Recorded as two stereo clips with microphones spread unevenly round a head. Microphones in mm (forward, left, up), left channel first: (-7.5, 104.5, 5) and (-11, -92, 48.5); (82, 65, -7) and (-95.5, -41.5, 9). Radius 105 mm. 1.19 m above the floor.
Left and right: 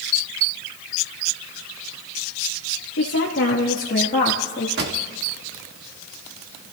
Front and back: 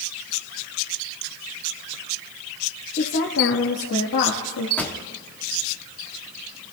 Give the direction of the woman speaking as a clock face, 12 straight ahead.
9 o'clock.